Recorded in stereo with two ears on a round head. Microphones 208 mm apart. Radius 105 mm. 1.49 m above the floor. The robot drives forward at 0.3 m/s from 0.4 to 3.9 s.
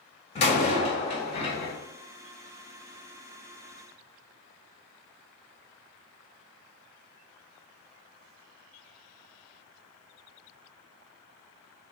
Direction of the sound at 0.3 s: 30° left (ahead or behind).